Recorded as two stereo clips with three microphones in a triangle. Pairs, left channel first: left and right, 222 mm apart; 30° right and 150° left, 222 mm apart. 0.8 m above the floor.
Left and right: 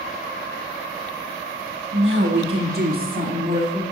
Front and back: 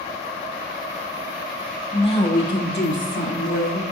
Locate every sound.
1.9 s a woman speaking: 95° right, 1.5 m; by 3.8 s 30° right, 3 m